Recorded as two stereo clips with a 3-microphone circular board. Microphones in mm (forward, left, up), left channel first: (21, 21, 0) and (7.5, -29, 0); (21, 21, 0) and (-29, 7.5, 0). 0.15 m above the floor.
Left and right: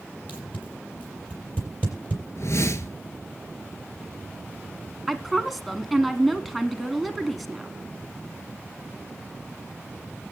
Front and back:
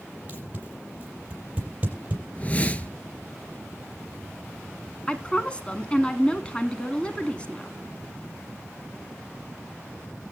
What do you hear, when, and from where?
0.3 s tape being pulled: 135° left, 5 m
2.4 s a whoosh: 75° left, 0.8 m
5.1 s a woman speaking: 15° right, 1.1 m